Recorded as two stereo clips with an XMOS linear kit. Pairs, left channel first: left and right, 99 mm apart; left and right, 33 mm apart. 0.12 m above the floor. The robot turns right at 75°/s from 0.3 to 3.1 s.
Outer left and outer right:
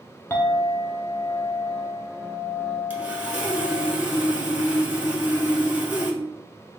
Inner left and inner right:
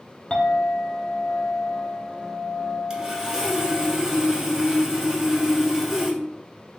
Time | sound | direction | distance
0.3 | a clink | 20° left (ahead or behind) | 0.6 m
2.9 | sawing | 20° right (ahead or behind) | 0.9 m